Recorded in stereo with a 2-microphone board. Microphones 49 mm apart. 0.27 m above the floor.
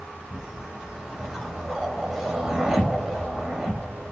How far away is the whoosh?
About 0.7 m.